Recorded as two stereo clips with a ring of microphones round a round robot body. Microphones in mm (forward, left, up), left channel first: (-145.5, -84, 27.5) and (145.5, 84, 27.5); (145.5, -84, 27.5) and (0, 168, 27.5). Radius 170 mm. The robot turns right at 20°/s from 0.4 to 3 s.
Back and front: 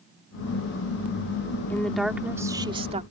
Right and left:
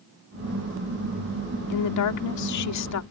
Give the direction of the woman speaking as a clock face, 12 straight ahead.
2 o'clock.